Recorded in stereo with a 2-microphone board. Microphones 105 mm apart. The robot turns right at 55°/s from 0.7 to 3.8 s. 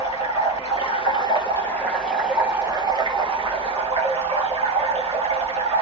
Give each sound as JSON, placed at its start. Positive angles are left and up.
{"t": 0.0, "sound": "running water", "azimuth_deg": 100, "distance_m": 1.6}